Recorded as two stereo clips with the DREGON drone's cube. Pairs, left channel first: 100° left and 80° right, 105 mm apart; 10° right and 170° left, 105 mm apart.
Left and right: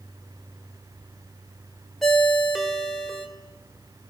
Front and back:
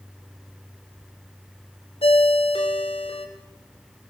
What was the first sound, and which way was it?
A ringtone, 10° left.